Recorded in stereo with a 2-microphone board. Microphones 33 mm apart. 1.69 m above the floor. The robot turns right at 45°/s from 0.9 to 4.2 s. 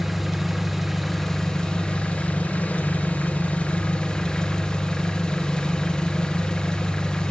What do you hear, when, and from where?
0.0 s an engine running: 5° right, 0.8 m; by 7.3 s 145° left, 0.8 m